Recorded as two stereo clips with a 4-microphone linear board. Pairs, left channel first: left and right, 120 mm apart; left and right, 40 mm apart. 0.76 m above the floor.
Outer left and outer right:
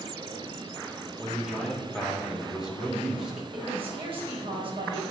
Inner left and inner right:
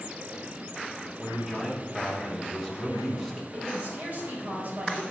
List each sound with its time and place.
1.2 s a man speaking: 5° right (ahead or behind), 3 m
3.5 s a woman speaking: 45° right (ahead or behind), 4 m